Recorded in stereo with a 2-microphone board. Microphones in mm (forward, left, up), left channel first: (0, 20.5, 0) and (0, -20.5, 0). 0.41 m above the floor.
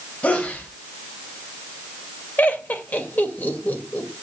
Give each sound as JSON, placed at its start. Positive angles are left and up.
{"t": 0.2, "sound": "a sneeze", "side_deg": 30, "distance_m": 1.7}
{"t": 2.4, "sound": "laughter", "side_deg": 45, "distance_m": 2.0}